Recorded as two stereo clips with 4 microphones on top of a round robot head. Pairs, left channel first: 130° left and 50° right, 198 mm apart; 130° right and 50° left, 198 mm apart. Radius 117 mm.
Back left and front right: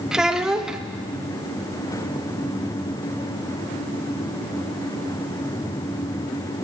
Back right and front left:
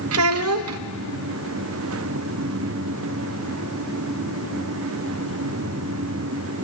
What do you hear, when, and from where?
0.1 s a child speaking: 40° left, 0.6 m